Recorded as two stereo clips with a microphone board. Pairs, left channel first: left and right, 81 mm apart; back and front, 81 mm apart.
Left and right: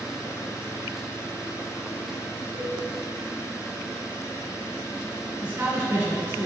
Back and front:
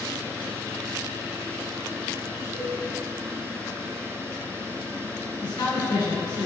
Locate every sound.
2.5 s a cowbell: 115° right, 2.5 m
5.4 s a man speaking: 150° right, 2.5 m